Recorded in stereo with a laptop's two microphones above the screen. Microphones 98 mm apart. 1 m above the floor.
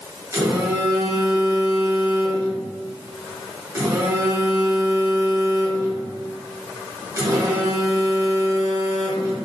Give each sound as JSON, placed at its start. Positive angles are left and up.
{"t": 0.3, "sound": "a phone buzzing", "side_deg": -35, "distance_m": 0.9}